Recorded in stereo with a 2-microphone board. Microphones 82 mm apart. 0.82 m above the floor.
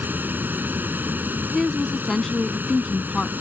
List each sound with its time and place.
0.0 s running water: 20° right (ahead or behind)
1.5 s a woman speaking: 5° left (ahead or behind)